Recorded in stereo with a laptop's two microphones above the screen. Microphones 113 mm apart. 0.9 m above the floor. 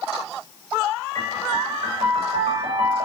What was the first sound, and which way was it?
A piano, 75° right (ahead or behind).